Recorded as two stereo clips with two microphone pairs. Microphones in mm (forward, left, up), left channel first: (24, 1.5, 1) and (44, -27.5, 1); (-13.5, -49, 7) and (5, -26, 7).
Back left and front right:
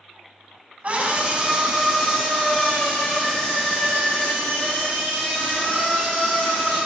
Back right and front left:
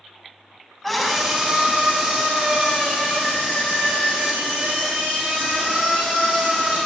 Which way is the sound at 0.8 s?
45° right.